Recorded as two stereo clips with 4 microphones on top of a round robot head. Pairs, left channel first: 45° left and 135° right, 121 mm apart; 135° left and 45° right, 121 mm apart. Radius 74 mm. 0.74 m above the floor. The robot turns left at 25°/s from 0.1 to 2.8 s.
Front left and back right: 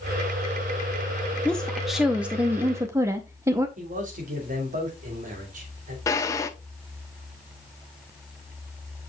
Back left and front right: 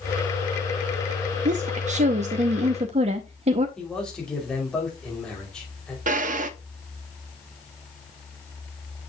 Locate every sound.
1.4 s a woman speaking: 40° right, 0.7 m; by 3.7 s 70° right, 0.7 m
3.8 s a man speaking: 140° right, 2.5 m
6.1 s a drawer: 25° right, 0.8 m